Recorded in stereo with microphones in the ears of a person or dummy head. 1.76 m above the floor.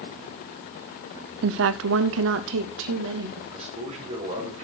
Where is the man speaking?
35° right (ahead or behind), 4 m.